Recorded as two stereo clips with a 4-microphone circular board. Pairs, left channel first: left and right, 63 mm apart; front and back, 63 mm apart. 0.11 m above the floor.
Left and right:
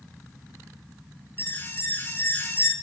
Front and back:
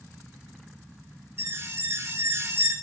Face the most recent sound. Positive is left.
turn(degrees=140)